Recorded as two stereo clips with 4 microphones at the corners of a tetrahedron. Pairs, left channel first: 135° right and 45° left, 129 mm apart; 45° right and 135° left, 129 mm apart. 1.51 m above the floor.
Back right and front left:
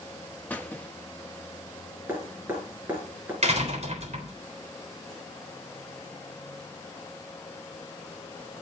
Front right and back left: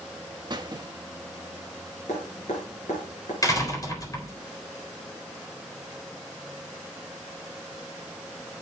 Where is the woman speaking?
No woman speaking in this recording.